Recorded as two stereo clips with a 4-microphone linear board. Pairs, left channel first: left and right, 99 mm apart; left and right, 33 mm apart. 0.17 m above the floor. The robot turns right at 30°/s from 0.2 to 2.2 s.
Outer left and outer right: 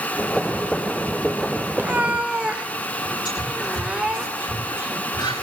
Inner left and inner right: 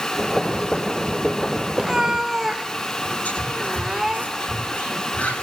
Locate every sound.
1.8 s a cat meowing: 20° right (ahead or behind), 0.8 m; by 4.2 s 10° right (ahead or behind), 0.8 m
3.2 s whispering: 55° left (ahead or behind), 9.5 m